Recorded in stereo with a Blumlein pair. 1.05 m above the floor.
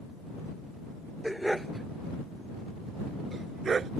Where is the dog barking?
Straight ahead; by 3.9 s 20° right.